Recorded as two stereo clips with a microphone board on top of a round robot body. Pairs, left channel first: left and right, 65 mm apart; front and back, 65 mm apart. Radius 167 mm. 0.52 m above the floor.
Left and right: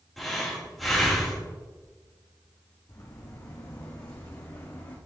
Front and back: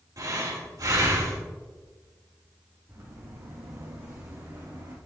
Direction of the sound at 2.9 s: 130° left.